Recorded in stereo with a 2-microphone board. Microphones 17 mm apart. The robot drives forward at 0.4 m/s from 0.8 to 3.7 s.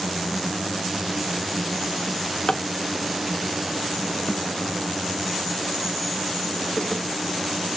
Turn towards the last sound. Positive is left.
turn(degrees=55)  # may be behind; listen again after turning